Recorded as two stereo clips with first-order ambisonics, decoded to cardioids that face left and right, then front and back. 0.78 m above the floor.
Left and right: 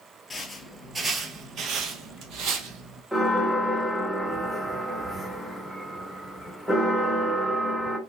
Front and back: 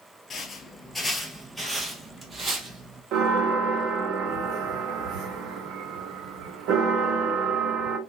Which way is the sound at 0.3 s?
25° left.